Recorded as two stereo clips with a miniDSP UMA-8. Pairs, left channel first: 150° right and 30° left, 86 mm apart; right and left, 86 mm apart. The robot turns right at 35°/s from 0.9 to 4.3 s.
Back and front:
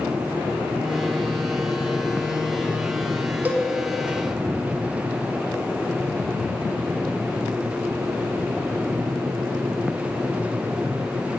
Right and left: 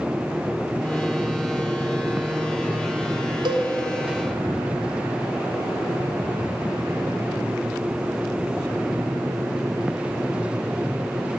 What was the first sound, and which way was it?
A cowbell, 100° left.